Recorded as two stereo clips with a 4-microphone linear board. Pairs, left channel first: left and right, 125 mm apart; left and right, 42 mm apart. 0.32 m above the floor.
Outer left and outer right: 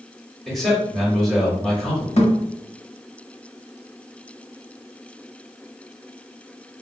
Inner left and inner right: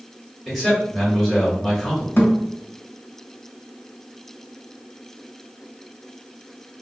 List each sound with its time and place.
0.5 s a man speaking: 5° left (ahead or behind), 1.1 m
2.2 s a thud: 60° left (ahead or behind), 0.8 m